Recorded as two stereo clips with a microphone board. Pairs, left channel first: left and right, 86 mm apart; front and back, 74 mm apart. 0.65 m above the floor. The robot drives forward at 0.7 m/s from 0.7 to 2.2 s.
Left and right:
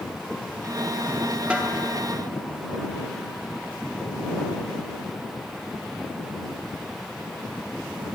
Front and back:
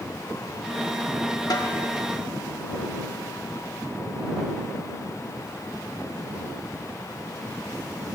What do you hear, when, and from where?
1.5 s a snare drum: 15° right, 0.9 m; by 1.8 s 20° right, 0.7 m